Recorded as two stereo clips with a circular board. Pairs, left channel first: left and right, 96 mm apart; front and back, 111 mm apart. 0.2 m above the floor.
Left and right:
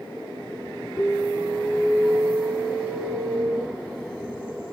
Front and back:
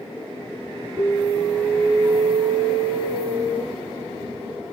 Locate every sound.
1.0 s an alarm: 130° left, 1.6 m